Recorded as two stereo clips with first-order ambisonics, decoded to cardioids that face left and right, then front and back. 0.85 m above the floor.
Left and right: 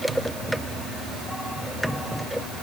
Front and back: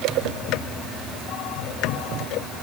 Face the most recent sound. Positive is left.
No sound to turn to.